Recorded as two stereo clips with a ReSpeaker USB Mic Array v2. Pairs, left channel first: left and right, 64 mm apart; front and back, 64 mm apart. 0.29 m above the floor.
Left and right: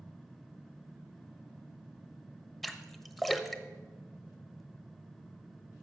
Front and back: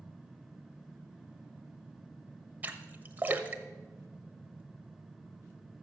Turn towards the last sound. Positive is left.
turn(degrees=170)